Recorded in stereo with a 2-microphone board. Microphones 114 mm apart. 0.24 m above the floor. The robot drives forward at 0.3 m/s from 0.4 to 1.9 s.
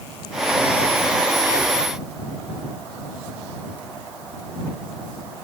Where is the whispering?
35° left (ahead or behind), 1.5 m.